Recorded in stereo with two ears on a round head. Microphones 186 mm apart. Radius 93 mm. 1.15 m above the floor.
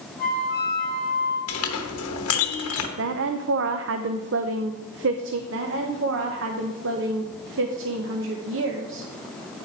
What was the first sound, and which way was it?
A flute, 60° right (ahead or behind).